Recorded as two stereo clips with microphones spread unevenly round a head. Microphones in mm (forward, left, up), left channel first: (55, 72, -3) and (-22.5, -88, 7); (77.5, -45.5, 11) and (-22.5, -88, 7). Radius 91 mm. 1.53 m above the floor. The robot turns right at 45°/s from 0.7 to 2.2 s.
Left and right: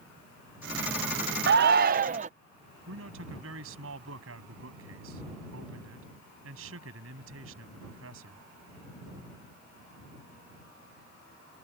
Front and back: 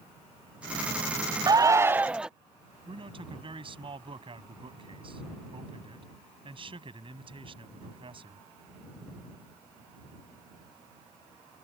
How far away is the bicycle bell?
No bicycle bell in this recording.